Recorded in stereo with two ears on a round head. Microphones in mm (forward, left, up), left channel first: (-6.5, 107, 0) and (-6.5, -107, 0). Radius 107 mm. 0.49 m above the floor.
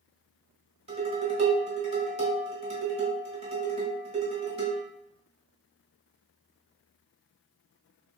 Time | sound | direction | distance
0.9 | dishes clattering | 25° right (ahead or behind) | 1.2 m